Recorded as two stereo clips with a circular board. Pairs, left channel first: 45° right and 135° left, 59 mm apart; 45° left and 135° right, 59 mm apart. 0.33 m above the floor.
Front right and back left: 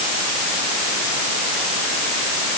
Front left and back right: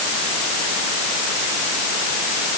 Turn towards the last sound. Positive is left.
No sound to turn to.